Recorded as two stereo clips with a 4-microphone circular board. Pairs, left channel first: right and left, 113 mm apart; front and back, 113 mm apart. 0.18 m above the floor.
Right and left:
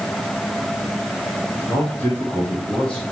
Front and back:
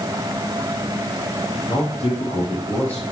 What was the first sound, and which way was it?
A man speaking, 25° right.